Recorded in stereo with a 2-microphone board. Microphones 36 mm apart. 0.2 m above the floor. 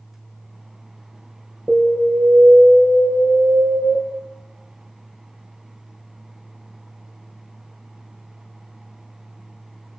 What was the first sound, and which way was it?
An alarm, 65° right (ahead or behind).